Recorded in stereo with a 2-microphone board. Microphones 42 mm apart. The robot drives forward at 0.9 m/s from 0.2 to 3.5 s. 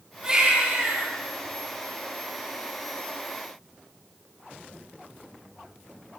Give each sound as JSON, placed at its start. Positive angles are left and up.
{"t": 0.2, "sound": "a baby crying", "side_deg": -20, "distance_m": 9.0}